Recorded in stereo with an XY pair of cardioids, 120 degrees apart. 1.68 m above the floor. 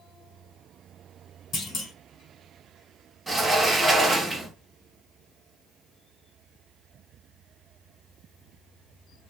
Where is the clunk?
40° left, 1.4 m.